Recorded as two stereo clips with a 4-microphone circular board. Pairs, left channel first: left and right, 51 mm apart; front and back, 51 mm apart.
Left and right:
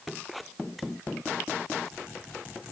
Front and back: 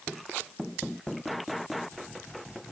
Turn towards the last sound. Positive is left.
No sound to turn to.